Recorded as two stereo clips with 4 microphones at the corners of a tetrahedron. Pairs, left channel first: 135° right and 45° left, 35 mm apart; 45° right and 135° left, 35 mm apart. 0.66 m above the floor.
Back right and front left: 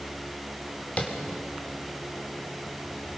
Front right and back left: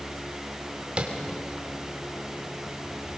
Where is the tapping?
175° right, 2.5 m.